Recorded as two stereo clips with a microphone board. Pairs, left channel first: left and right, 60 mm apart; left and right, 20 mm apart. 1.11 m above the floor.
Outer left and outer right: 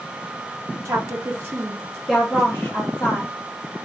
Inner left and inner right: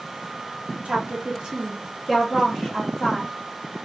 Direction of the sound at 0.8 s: 55° right (ahead or behind).